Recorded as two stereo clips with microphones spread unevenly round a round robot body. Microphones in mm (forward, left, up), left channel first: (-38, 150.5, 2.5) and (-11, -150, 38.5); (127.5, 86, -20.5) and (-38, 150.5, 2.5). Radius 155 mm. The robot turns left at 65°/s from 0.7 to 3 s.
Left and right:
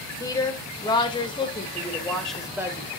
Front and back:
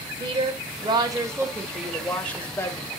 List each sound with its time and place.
0.2 s a woman speaking: 130° left, 1.1 m; by 2.9 s 15° right, 1.1 m